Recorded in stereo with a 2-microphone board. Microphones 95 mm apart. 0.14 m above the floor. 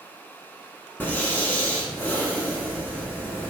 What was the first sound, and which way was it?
Breathing, 20° left (ahead or behind).